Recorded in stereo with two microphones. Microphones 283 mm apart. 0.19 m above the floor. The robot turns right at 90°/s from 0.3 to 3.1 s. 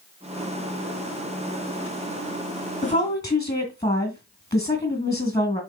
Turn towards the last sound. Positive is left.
turn(degrees=15)  # may be behind; listen again after turning